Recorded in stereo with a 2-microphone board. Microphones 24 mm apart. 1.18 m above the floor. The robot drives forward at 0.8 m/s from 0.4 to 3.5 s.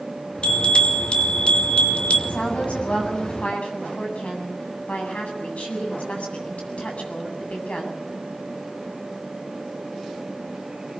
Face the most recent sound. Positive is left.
turn(degrees=75)  # may be behind; listen again after turning